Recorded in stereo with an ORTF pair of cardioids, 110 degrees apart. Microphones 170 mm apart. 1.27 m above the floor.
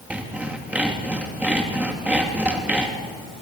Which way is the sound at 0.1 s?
10° right.